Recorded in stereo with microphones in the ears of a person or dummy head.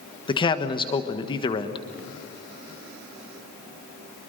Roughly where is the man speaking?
Left.